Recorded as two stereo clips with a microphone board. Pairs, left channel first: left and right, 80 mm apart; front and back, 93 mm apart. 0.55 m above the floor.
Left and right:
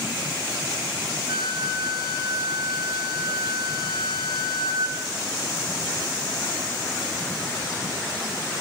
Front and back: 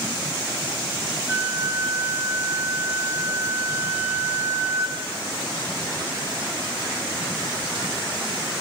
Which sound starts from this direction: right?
A flute, at 1.3 s.